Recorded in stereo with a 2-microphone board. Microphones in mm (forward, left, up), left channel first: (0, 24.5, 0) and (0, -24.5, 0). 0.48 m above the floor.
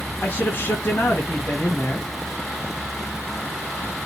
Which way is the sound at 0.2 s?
40° left (ahead or behind).